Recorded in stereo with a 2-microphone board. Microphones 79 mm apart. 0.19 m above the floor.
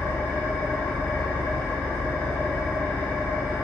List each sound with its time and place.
0.0 s an engine running: 10° right (ahead or behind), 1.2 m